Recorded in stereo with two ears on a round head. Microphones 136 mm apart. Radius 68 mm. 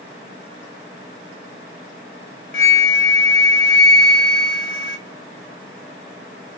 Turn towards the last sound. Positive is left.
turn(degrees=60)  # may be behind; listen again after turning